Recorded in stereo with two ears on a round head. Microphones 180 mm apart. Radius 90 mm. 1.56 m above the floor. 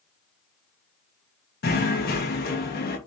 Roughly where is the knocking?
Left.